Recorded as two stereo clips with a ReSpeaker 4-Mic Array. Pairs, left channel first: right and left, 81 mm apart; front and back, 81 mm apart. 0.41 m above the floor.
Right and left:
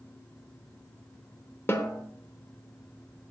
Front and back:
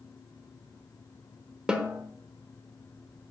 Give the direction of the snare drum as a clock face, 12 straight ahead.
4 o'clock.